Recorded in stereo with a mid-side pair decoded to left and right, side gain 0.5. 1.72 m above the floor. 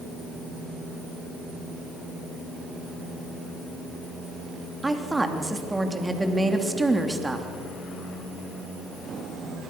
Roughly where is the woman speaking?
Ahead.